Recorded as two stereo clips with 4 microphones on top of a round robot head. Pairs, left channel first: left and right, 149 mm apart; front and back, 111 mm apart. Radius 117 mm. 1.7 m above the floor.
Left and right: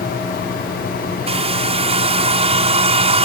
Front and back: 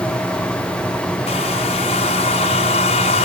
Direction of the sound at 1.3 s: 45° right.